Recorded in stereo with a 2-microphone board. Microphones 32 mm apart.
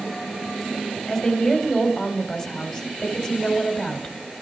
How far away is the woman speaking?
About 2.5 m.